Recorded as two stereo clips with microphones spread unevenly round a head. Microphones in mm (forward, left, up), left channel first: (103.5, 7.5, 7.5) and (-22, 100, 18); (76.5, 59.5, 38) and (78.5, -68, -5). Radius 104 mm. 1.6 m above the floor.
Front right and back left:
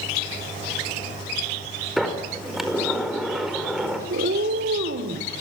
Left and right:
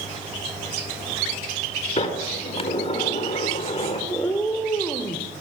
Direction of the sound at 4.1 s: 160° left.